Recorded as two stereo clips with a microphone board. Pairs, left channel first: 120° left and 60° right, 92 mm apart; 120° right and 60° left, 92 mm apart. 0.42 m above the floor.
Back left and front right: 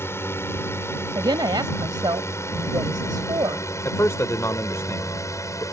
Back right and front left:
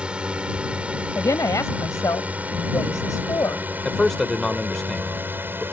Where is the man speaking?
155° left.